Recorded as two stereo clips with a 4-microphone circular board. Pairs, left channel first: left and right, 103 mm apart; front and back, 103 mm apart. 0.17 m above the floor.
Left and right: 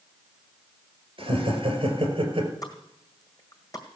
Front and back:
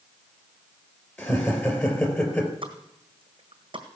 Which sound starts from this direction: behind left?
A pop, at 2.6 s.